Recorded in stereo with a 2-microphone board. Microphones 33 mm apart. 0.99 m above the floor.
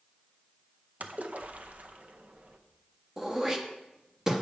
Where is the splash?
50° right (ahead or behind), 0.6 m.